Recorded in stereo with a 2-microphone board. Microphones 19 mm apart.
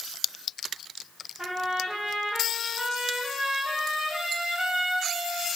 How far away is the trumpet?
About 4.5 m.